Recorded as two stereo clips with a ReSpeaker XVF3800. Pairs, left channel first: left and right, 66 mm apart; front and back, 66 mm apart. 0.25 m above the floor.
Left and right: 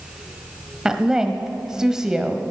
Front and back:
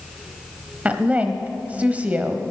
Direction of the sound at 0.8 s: 155° right.